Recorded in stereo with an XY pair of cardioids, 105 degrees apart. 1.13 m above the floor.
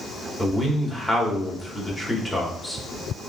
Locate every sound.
0.4 s a man speaking: 10° left, 3.5 m